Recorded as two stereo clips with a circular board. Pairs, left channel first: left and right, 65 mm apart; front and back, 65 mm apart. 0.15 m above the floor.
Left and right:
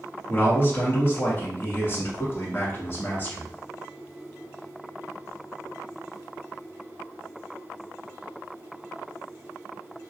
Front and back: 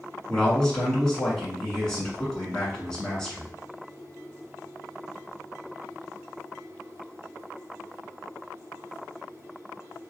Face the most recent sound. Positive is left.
turn(degrees=75)